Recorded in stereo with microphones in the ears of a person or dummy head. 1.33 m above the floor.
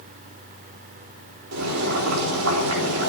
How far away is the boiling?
About 4 m.